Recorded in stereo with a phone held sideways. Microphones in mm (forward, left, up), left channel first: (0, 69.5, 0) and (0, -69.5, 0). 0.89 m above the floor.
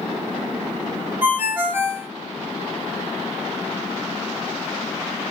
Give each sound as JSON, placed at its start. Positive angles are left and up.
{"t": 1.2, "sound": "a ringtone", "side_deg": -15, "distance_m": 1.0}